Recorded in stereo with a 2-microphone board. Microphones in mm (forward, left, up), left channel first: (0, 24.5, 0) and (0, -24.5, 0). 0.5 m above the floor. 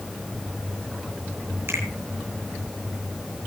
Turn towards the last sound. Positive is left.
turn(degrees=-55)  # may be behind; listen again after turning